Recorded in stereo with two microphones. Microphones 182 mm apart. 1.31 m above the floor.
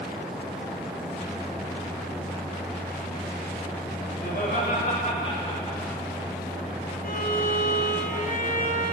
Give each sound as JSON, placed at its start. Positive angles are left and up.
{"t": 4.2, "sound": "laughter", "side_deg": 55, "distance_m": 3.5}
{"t": 7.0, "sound": "a violin", "side_deg": 55, "distance_m": 3.0}